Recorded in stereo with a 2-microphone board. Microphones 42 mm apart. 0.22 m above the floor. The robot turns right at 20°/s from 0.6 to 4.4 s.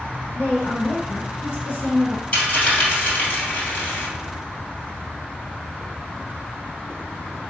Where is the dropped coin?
35° left (ahead or behind), 2.0 m; by 4.1 s 70° left (ahead or behind), 2.0 m.